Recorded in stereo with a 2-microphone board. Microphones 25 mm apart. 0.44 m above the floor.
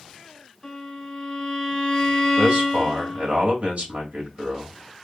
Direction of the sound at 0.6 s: 10° left (ahead or behind).